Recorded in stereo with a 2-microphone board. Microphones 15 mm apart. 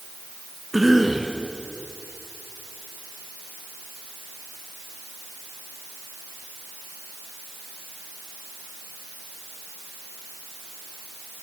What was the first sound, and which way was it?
A cough, 10° right (ahead or behind).